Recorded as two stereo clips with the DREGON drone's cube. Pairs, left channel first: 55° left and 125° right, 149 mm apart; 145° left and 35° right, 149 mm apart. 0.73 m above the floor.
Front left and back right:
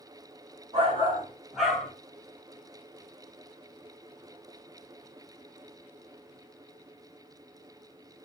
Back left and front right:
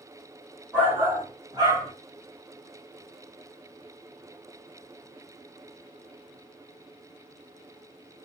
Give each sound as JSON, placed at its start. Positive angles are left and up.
{"t": 0.7, "sound": "a shout", "azimuth_deg": -110, "distance_m": 1.5}